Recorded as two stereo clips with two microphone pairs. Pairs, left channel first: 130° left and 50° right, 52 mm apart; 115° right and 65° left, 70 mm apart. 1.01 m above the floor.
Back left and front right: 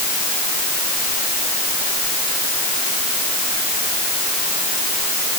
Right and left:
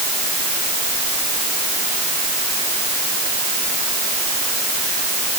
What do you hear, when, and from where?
Only background noise.